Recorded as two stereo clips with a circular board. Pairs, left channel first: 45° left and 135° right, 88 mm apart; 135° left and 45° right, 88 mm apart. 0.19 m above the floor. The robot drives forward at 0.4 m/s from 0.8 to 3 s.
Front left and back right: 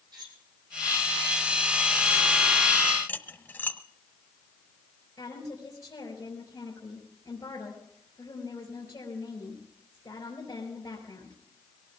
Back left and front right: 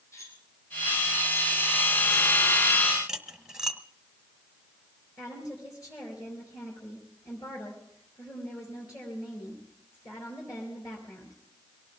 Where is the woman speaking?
95° left, 4 m.